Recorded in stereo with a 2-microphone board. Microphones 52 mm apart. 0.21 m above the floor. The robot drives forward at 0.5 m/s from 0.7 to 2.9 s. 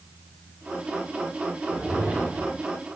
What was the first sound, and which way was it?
A whoosh, 25° right (ahead or behind).